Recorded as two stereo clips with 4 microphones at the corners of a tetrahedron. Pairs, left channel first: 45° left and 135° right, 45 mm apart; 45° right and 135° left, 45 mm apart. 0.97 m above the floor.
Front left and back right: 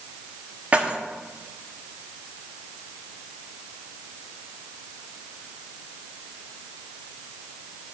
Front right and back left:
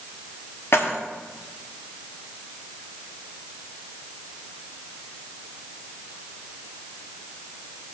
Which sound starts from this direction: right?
Keys jangling, at 0.7 s.